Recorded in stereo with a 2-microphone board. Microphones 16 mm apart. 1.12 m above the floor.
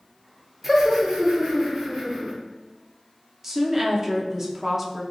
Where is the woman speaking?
25° right (ahead or behind), 0.6 m.